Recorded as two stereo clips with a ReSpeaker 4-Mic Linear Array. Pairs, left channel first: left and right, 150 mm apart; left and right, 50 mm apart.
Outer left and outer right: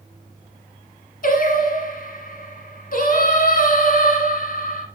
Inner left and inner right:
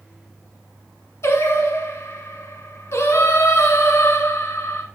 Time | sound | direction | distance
1.2 | singing | 65° left (ahead or behind) | 1.4 m